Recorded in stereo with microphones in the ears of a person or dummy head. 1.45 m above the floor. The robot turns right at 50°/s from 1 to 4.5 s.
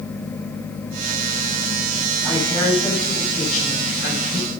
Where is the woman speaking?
25° right, 9 m; by 4.5 s 85° left, 9 m.